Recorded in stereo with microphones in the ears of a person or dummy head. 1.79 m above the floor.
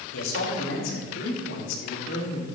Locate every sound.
0.1 s a man speaking: 85° left, 3.5 m; by 2.5 s 70° left (ahead or behind), 4.5 m